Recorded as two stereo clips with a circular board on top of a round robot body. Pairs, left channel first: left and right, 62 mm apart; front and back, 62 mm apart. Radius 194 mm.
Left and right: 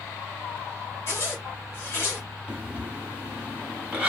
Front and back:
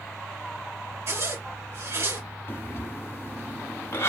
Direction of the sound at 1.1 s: 140° left.